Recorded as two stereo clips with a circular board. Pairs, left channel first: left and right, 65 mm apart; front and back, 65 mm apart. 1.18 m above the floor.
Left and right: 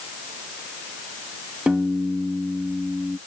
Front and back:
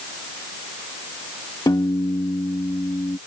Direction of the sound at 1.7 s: 15° right.